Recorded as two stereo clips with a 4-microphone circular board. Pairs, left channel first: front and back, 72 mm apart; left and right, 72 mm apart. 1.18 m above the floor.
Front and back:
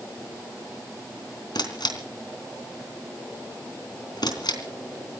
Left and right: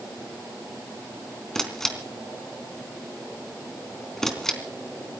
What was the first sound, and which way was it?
A camera shutter, 5° left.